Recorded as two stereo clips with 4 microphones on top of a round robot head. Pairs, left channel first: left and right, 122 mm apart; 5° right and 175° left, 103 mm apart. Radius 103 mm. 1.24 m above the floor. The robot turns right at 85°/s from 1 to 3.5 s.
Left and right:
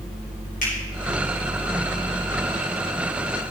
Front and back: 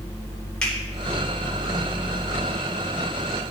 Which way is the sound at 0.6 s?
75° left.